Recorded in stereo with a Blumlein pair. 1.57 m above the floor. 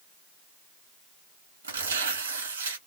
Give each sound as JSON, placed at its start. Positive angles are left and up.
{"t": 1.6, "sound": "tearing paper", "azimuth_deg": -70, "distance_m": 1.5}